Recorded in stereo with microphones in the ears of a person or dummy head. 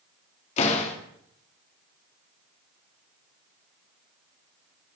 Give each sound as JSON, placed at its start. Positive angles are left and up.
{"t": 0.6, "sound": "a door slam", "side_deg": 40, "distance_m": 2.0}